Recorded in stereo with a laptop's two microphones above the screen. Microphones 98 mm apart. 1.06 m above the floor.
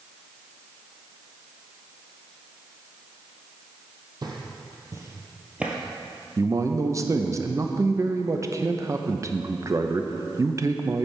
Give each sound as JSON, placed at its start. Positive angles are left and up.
{"t": 4.2, "sound": "footsteps", "side_deg": -45, "distance_m": 1.6}
{"t": 6.4, "sound": "a man speaking", "side_deg": -35, "distance_m": 0.6}